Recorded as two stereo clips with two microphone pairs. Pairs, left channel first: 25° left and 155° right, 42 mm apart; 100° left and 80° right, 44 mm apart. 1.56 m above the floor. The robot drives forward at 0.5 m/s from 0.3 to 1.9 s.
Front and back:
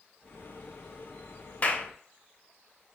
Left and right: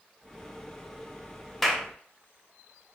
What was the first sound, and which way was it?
A clap, 25° left.